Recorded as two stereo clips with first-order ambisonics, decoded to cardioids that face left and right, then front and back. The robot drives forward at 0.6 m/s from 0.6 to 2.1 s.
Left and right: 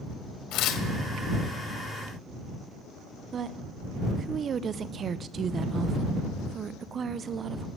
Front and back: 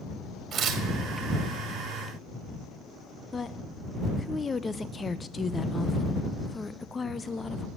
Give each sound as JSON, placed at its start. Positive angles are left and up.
{"t": 0.5, "sound": "tearing paper", "azimuth_deg": 120, "distance_m": 1.5}
{"t": 3.3, "sound": "a woman speaking", "azimuth_deg": -65, "distance_m": 0.5}